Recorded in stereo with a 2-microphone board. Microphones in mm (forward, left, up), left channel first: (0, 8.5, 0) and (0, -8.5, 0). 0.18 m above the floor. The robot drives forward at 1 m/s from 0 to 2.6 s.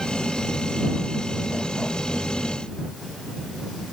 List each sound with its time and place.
Only background noise.